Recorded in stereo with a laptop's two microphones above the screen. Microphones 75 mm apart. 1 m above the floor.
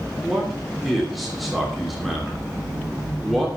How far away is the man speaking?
About 3 m.